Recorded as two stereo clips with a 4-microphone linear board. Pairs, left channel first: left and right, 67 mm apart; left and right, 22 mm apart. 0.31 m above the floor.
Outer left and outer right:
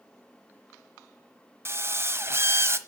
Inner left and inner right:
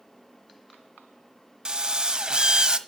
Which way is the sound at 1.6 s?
40° right (ahead or behind).